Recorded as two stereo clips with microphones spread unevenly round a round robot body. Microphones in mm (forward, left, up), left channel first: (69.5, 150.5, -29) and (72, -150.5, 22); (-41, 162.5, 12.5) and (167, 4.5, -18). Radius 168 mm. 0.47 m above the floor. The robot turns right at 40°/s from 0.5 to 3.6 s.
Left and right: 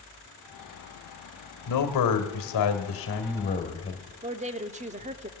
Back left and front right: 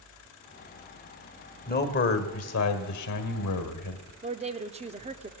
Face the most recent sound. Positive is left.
turn(degrees=-25)